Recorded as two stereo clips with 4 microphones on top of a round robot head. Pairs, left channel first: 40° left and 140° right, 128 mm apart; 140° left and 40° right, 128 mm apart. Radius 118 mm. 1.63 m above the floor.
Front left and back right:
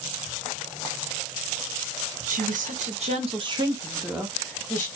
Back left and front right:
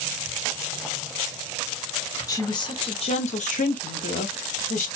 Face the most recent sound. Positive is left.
turn(degrees=120)